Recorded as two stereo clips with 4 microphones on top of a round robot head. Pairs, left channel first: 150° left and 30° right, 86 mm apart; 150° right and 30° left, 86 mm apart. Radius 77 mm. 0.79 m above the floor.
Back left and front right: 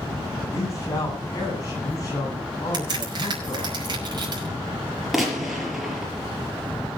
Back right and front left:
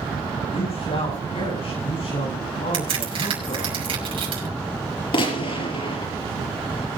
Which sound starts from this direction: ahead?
A crack, at 2.7 s.